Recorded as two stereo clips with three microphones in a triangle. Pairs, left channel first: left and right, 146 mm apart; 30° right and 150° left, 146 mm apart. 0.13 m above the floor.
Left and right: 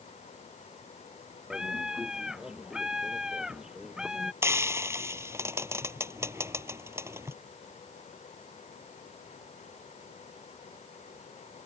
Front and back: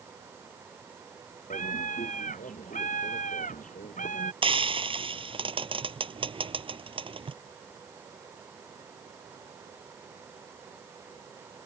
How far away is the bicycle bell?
I don't hear a bicycle bell.